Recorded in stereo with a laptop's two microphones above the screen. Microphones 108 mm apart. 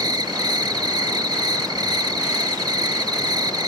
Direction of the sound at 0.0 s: 40° right (ahead or behind).